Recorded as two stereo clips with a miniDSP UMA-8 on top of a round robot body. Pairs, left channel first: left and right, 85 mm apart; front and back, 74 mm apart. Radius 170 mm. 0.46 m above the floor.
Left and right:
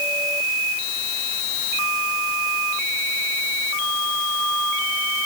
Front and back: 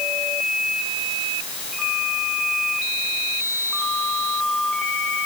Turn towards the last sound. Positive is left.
No sound to turn to.